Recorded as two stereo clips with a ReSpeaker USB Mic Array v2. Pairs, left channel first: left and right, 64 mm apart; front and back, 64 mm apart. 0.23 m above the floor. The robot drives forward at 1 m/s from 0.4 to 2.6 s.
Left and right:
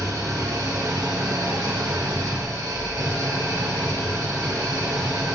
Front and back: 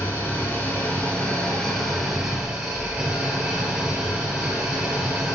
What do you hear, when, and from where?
0.0 s an engine running: 60° right, 3 m; by 5.4 s 105° right, 2.5 m